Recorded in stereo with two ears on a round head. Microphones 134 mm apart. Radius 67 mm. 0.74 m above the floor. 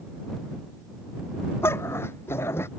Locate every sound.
1.6 s a dog barking: 15° left (ahead or behind)